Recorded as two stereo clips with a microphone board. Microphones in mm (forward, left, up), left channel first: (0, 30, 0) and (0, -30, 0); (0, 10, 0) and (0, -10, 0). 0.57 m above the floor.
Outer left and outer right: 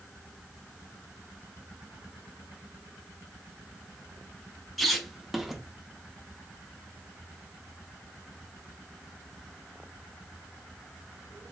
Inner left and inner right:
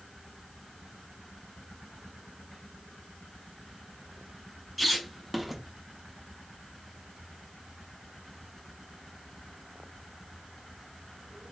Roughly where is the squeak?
Centre.